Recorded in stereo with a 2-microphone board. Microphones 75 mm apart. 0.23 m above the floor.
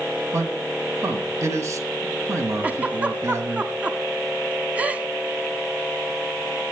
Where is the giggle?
15° right (ahead or behind), 1.1 m.